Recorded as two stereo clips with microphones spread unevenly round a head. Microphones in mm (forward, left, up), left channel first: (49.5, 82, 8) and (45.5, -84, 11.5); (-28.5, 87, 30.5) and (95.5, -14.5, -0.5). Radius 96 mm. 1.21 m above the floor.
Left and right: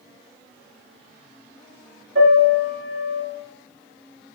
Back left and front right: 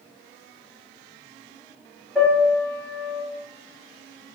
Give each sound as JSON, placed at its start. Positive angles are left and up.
{"t": 2.1, "sound": "a piano", "azimuth_deg": -130, "distance_m": 3.5}